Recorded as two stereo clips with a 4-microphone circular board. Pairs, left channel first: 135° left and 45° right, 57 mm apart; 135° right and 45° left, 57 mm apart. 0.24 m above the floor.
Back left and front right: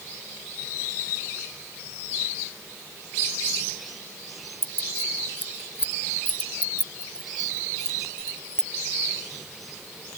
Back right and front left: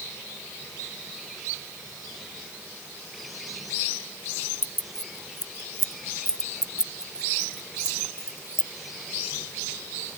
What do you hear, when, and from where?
4.6 s keys jangling: 100° left; by 8.7 s 55° left